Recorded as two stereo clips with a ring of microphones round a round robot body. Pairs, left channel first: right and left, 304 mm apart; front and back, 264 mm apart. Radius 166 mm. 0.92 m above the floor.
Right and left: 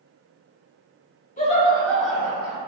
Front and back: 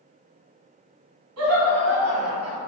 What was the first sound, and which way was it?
Laughter, 155° right.